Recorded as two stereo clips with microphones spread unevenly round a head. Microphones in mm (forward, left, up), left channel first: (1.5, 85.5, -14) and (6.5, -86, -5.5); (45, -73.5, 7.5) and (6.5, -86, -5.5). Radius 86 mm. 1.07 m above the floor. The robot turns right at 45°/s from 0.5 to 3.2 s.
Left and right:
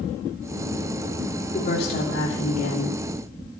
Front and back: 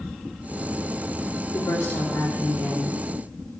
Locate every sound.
1.5 s a woman speaking: 45° left, 3 m; by 3.0 s 110° left, 3 m